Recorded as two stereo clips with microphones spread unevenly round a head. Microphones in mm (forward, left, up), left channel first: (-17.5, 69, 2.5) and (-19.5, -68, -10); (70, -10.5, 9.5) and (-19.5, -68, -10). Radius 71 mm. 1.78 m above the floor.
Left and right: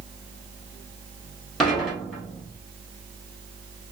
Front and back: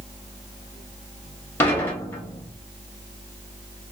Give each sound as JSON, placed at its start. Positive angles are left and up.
{"t": 1.6, "sound": "dishes clattering", "azimuth_deg": 10, "distance_m": 1.0}